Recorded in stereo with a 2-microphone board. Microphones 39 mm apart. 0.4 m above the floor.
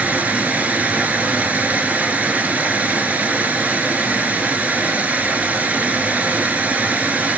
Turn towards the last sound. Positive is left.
turn(degrees=-40)  # may be behind; listen again after turning